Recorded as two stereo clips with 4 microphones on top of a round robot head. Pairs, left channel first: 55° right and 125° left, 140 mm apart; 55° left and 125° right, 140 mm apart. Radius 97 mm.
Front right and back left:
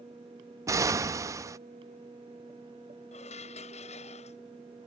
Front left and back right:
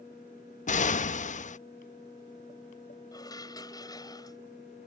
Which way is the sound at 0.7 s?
60° left.